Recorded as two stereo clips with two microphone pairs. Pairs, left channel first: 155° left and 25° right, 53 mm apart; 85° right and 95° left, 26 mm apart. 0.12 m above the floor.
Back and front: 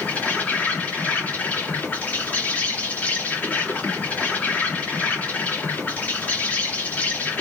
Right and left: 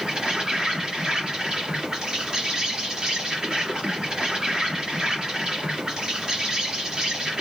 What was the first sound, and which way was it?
An insect, 120° left.